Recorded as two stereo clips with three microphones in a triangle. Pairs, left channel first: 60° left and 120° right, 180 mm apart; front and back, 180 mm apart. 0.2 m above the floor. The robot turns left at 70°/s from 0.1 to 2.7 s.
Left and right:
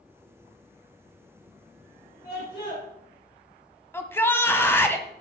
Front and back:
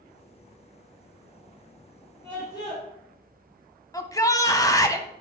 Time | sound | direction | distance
2.2 | a scream | 75° left | 4 m
3.9 | a shout | 10° left | 1.1 m